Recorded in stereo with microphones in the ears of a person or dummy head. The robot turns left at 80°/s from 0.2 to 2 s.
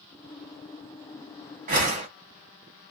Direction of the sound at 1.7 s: 40° right (ahead or behind).